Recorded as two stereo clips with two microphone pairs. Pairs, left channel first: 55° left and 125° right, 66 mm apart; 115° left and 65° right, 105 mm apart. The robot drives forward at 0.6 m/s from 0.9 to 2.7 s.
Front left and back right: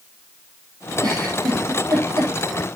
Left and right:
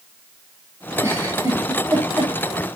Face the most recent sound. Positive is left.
turn(degrees=-135)